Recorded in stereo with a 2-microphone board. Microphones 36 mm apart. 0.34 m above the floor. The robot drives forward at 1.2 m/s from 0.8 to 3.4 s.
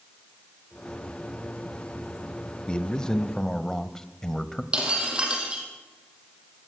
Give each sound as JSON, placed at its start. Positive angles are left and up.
{"t": 2.7, "sound": "a man speaking", "side_deg": 25, "distance_m": 0.9}
{"t": 4.7, "sound": "breaking glass", "side_deg": -25, "distance_m": 5.0}